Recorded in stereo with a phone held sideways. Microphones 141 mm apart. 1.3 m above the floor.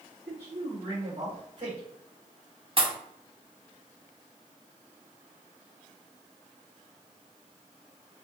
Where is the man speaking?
45° right (ahead or behind), 2 m; by 1.8 s 60° right (ahead or behind), 3 m.